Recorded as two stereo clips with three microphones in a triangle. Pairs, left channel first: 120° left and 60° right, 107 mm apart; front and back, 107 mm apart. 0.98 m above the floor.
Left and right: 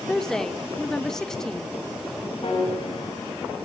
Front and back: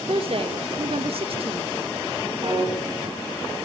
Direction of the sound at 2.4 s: 145° left.